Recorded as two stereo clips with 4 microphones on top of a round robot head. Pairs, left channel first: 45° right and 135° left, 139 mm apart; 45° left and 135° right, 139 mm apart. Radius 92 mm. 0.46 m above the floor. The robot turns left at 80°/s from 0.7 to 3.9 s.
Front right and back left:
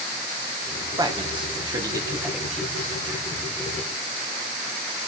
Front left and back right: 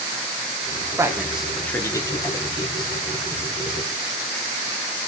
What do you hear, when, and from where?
1.0 s a man speaking: 170° left, 0.9 m; by 2.9 s 15° left, 0.9 m